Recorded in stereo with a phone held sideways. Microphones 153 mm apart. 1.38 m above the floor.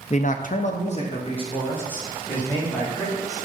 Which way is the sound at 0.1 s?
45° left (ahead or behind).